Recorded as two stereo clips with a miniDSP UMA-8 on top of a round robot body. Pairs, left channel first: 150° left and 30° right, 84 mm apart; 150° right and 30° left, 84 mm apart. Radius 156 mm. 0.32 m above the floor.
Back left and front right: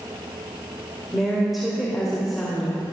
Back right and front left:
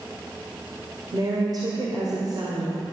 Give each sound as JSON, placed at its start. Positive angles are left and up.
{"t": 1.1, "sound": "a woman speaking", "azimuth_deg": 60, "distance_m": 2.5}